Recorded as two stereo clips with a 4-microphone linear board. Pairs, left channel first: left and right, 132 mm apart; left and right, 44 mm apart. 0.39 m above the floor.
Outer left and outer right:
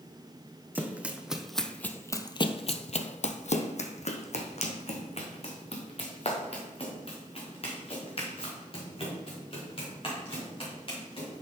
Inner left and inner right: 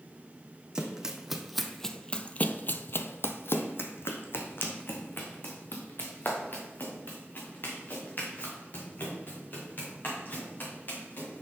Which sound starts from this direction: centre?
Running footsteps, at 0.8 s.